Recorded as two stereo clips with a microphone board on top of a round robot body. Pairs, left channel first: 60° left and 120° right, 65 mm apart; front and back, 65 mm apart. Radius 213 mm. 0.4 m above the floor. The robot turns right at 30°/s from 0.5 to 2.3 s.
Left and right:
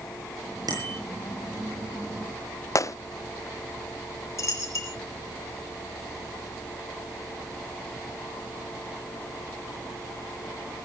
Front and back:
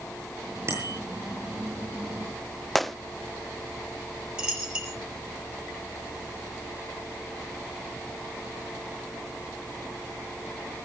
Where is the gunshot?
90° left, 0.8 m.